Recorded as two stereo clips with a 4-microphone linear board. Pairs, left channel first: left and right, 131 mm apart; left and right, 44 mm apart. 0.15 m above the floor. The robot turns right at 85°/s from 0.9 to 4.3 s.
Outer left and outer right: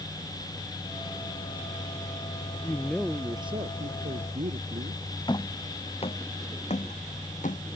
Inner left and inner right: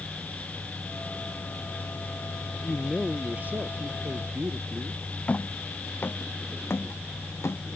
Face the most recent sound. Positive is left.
turn(degrees=65)  # may be behind; listen again after turning